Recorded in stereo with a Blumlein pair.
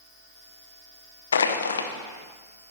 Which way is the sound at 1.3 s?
70° left.